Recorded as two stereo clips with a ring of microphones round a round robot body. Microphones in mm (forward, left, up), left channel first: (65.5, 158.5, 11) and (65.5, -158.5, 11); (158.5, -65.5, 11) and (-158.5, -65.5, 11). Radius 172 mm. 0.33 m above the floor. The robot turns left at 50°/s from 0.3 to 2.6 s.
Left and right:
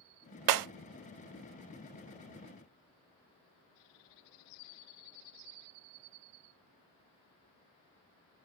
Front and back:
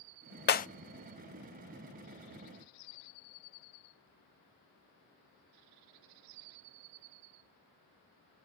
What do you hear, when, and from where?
0.5 s breaking glass: 60° right, 0.5 m; by 0.7 s 70° right, 0.5 m